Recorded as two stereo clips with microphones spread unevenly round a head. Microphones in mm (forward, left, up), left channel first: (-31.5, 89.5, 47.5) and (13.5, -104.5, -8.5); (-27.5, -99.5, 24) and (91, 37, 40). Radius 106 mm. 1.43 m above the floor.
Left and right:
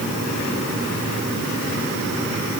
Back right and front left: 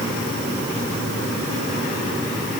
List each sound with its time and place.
Only background noise.